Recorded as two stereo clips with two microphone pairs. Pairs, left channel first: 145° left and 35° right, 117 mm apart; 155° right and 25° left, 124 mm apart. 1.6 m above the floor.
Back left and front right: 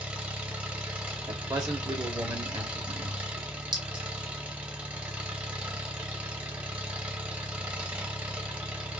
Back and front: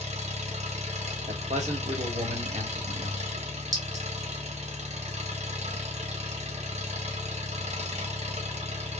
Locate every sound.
0.0 s an engine running: 40° left, 1.0 m
1.3 s a man speaking: 15° left, 1.1 m
3.7 s a clink: 20° right, 1.3 m